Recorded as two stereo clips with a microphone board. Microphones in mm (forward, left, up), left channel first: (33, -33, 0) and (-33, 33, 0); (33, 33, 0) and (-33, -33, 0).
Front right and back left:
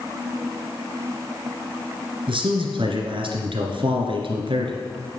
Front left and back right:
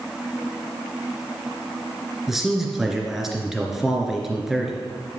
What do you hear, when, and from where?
2.3 s a man speaking: 140° left, 2.5 m